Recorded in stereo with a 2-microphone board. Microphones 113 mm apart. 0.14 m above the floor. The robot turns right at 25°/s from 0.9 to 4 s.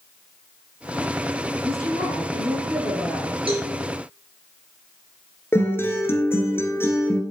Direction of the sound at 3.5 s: 55° right (ahead or behind).